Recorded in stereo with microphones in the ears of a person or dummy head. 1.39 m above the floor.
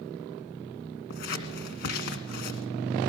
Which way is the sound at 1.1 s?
50° left (ahead or behind).